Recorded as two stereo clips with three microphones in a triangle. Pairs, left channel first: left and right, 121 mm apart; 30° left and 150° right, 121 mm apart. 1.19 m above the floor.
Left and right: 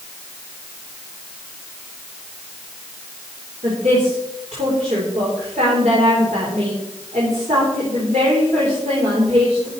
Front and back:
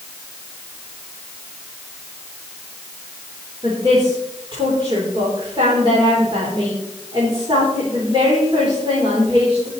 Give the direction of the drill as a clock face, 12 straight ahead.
No drill in this recording.